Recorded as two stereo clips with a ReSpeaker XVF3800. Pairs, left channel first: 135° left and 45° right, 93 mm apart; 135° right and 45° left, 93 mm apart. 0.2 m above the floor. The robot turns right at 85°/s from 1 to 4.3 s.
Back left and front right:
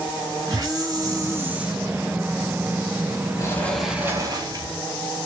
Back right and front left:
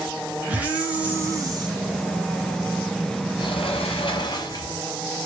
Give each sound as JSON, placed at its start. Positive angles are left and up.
{"t": 0.5, "sound": "a hiss", "azimuth_deg": -25, "distance_m": 0.8}
{"t": 3.4, "sound": "a sliding door", "azimuth_deg": -170, "distance_m": 0.7}